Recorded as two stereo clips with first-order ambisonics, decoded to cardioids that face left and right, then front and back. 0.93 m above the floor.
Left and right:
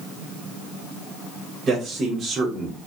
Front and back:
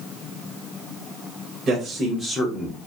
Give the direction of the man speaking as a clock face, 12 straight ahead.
5 o'clock.